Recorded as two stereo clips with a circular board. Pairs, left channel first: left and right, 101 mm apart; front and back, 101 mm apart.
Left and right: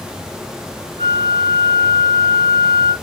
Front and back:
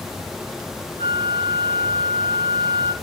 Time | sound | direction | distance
1.0 | a flute | 65° right | 3 m